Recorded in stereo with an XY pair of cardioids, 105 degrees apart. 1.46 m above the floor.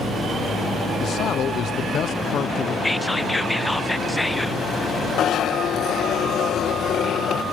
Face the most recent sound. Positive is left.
turn(degrees=70)